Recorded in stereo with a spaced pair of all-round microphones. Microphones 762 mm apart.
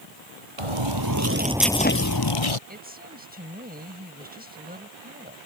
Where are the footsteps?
45° right (ahead or behind); by 2.6 s 45° left (ahead or behind).